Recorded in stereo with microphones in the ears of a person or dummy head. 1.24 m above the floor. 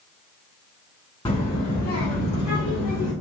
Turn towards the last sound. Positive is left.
turn(degrees=70)  # may be behind; listen again after turning